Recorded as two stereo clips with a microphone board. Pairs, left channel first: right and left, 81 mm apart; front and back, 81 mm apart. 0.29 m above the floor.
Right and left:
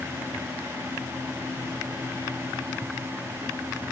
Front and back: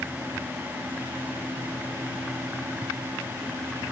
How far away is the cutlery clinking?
I don't hear cutlery clinking.